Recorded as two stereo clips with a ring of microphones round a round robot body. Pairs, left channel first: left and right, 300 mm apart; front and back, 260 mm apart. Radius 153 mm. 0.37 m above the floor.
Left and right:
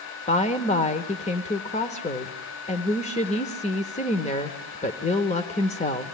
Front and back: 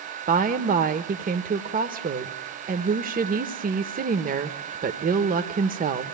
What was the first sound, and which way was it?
A woman speaking, 145° left.